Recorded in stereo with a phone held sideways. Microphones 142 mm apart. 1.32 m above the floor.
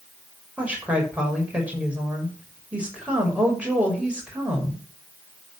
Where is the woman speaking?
10° right (ahead or behind), 6 m.